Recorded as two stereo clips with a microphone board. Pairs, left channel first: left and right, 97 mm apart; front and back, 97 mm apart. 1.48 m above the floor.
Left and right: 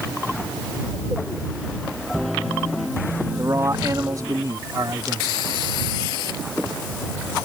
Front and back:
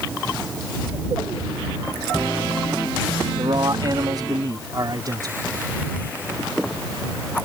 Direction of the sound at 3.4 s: 145° right.